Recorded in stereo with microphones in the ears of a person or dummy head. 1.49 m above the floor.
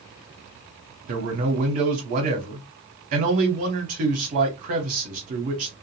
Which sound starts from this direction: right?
A man speaking, at 1.1 s.